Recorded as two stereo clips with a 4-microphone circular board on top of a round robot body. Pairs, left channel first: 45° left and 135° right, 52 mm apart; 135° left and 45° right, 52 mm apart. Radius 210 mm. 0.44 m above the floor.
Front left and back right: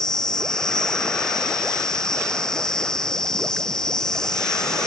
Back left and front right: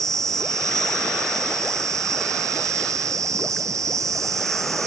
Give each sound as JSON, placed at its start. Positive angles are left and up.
{"t": 0.0, "sound": "an insect", "azimuth_deg": -35}